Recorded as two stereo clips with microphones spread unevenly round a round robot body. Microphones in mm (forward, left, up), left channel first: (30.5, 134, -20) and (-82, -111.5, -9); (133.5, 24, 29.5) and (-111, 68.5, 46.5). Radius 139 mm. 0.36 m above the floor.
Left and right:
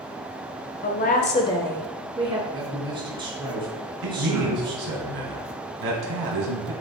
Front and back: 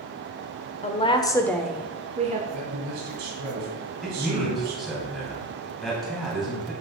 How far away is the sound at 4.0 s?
About 2.5 m.